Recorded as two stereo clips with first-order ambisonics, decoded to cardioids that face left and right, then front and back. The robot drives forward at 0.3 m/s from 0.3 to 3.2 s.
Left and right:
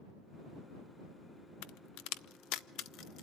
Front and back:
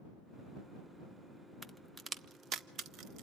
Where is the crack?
95° left, 0.5 m; by 3.2 s 135° left, 0.8 m.